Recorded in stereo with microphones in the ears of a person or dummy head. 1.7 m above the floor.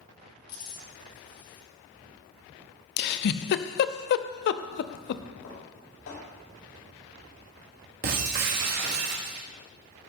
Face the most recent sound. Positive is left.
turn(degrees=-45)  # may be behind; listen again after turning